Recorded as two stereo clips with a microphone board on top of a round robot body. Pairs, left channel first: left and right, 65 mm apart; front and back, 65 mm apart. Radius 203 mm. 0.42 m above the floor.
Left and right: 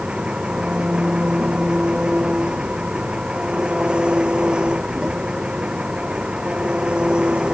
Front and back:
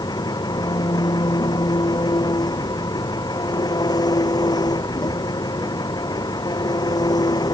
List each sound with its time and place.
0.0 s an engine running: 15° right